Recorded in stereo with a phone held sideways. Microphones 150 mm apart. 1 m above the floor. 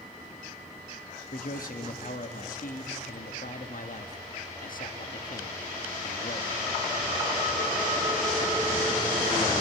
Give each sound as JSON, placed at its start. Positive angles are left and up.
{"t": 1.3, "sound": "a man speaking", "side_deg": 65, "distance_m": 1.5}